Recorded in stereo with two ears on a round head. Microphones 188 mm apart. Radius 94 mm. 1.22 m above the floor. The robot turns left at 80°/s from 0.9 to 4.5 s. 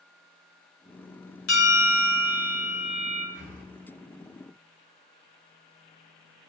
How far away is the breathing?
About 2 m.